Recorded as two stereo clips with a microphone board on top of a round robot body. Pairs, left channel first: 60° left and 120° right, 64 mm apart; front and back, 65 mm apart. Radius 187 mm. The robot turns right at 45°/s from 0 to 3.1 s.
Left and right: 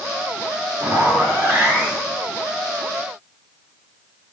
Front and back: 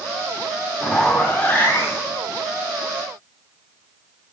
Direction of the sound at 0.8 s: 95° right.